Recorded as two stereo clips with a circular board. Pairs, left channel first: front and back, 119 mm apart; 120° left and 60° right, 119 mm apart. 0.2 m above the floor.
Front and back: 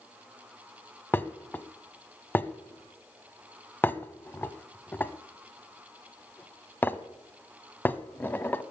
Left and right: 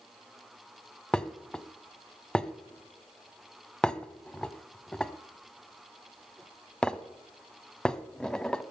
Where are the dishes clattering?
45° left, 0.7 m.